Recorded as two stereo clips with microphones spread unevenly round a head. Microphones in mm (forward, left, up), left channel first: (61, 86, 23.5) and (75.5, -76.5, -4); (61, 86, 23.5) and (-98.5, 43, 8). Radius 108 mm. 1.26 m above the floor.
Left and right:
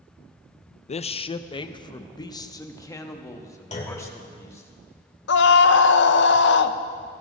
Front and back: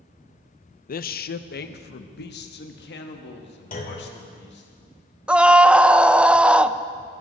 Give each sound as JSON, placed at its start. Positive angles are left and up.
{"t": 0.9, "sound": "a man speaking", "azimuth_deg": 50, "distance_m": 0.6}
{"t": 3.7, "sound": "a clunk", "azimuth_deg": 50, "distance_m": 3.0}
{"t": 5.3, "sound": "a scream", "azimuth_deg": 110, "distance_m": 0.7}